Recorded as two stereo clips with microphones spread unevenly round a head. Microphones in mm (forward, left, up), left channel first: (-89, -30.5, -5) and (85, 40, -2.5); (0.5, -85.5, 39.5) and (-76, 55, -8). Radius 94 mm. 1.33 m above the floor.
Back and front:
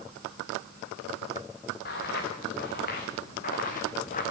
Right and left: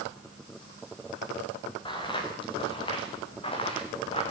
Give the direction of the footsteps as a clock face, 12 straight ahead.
4 o'clock.